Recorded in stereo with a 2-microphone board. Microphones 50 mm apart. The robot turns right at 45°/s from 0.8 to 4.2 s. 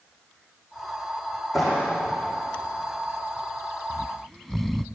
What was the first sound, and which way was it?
A clap, centre (ahead or behind).